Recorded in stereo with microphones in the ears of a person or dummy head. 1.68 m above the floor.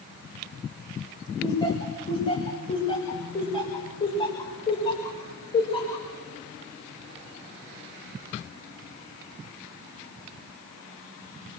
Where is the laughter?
25° left (ahead or behind), 6 m.